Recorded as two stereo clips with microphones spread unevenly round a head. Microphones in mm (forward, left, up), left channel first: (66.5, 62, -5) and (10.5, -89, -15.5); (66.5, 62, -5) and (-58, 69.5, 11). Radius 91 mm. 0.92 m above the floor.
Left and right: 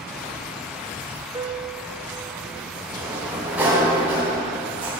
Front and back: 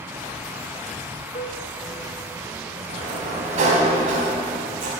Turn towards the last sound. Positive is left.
turn(degrees=165)